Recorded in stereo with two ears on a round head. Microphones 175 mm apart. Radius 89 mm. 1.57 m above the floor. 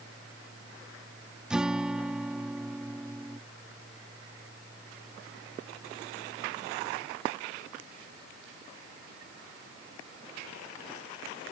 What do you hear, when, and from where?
1.5 s a guitar: 5° right (ahead or behind)